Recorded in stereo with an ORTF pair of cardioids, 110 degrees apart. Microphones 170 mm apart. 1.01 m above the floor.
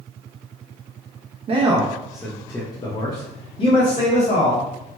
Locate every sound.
1.5 s a man speaking: 35° right, 0.6 m; by 4.7 s 55° left, 1.6 m